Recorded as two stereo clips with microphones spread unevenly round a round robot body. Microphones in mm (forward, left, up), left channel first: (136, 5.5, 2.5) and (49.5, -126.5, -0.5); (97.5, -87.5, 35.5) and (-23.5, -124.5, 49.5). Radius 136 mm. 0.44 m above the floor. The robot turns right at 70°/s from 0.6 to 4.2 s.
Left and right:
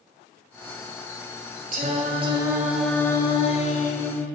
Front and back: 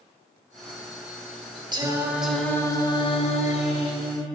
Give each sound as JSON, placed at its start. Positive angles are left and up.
{"t": 1.7, "sound": "singing", "azimuth_deg": -110, "distance_m": 1.8}